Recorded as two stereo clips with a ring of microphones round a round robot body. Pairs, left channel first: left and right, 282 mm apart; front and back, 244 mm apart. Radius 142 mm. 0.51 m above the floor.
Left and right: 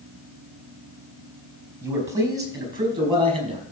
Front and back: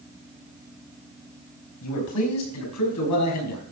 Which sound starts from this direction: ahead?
A man speaking, at 1.8 s.